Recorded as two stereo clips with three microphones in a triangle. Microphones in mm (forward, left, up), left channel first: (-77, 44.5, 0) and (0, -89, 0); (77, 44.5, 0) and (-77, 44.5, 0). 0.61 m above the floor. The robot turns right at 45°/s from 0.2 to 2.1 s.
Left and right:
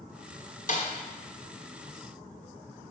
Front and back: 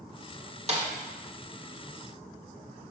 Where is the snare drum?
140° left, 1.4 m; by 0.9 s 150° left, 1.4 m.